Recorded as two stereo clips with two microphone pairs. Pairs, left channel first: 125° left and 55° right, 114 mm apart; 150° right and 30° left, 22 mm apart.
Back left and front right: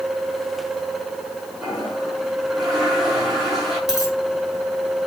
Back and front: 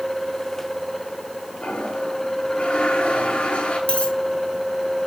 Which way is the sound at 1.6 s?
145° right.